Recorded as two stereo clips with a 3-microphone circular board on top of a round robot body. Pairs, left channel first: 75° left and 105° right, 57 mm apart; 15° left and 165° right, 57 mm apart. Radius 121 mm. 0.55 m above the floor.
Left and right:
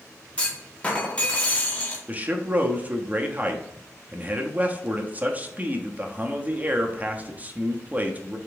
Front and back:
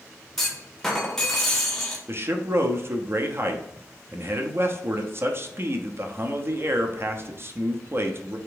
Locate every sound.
0.4 s a clunk: 85° left, 1.3 m
2.1 s a man speaking: 155° right, 0.9 m